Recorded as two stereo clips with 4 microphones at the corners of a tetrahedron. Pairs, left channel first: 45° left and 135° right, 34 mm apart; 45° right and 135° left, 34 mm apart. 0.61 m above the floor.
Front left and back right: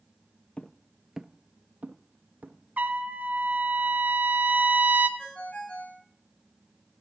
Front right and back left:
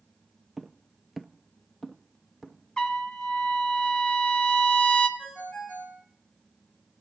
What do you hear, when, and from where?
0.6 s footsteps: 55° left, 0.7 m; by 2.6 s 130° right, 1.7 m
2.8 s a trumpet: 110° right, 1.3 m
5.2 s a ringtone: 5° right, 3.5 m